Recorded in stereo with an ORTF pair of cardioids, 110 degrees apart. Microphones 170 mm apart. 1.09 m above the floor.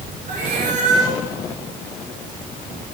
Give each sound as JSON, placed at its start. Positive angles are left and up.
{"t": 0.3, "sound": "a cat meowing", "azimuth_deg": -45, "distance_m": 6.0}